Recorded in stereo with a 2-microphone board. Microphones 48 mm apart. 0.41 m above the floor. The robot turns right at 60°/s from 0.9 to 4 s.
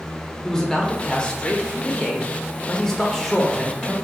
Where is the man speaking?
15° left (ahead or behind), 0.9 m; by 3.9 s 15° right (ahead or behind), 0.9 m.